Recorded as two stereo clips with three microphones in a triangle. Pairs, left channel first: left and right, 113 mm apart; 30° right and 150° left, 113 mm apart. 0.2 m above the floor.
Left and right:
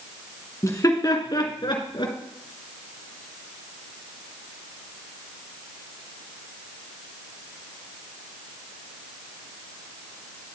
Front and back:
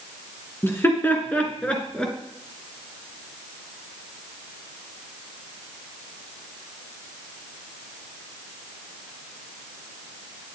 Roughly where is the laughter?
Ahead left.